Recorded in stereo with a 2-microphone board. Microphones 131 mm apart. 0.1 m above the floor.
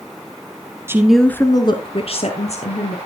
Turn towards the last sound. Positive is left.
turn(degrees=60)  # may be behind; listen again after turning